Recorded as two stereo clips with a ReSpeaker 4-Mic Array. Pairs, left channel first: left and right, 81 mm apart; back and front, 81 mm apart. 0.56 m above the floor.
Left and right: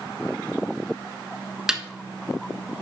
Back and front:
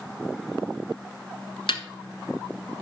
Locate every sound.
1.7 s a snare drum: 175° right, 1.3 m